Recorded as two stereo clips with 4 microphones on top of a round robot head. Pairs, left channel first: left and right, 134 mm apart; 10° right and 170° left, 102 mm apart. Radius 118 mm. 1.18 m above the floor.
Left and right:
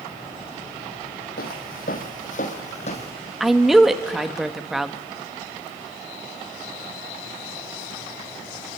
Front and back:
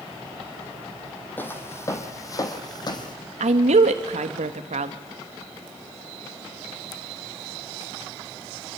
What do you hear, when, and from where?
1.4 s footsteps: 65° left, 2.5 m; by 3.1 s 35° left, 2.5 m
3.4 s a woman speaking: straight behind, 1.4 m